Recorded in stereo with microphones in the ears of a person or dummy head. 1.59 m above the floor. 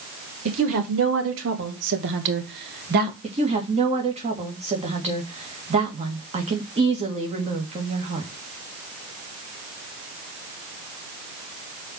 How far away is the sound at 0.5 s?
About 3 m.